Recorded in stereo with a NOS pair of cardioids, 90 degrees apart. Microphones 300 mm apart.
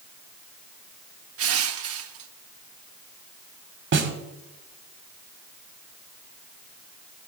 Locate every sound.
1.4 s crushing: 50° right, 0.9 m
3.9 s a snare drum: 40° right, 1.5 m